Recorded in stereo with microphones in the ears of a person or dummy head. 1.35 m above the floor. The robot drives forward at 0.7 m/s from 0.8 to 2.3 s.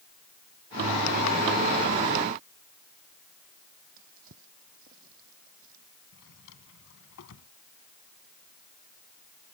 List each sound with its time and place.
4.0 s a drawer: 55° right (ahead or behind)
6.1 s a drawer: 70° left (ahead or behind)